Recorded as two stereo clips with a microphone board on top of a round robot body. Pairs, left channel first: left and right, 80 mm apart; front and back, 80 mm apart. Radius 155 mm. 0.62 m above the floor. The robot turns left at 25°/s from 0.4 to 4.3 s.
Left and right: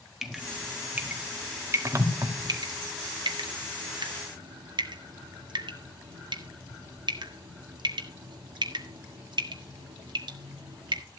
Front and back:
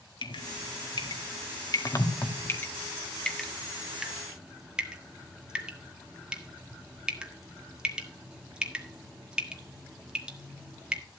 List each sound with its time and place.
0.2 s dripping: 5° right, 2.0 m; by 11.0 s 100° right, 2.0 m